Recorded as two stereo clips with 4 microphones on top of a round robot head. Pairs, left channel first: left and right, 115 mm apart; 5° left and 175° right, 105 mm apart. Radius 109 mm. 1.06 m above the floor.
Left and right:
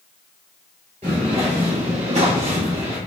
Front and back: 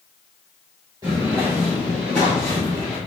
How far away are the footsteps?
About 1.2 m.